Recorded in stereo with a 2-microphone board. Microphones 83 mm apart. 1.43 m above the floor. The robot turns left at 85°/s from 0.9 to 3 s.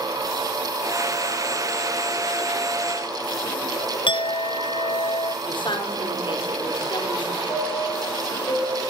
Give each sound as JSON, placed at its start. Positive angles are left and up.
{"t": 4.1, "sound": "a clink", "side_deg": 70, "distance_m": 0.7}
{"t": 5.5, "sound": "a woman speaking", "side_deg": 65, "distance_m": 4.5}
{"t": 7.5, "sound": "a chime", "side_deg": 45, "distance_m": 9.0}